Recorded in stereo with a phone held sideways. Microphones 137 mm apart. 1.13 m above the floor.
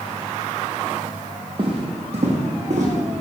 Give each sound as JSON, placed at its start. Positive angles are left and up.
{"t": 1.6, "sound": "footsteps", "side_deg": -40, "distance_m": 1.6}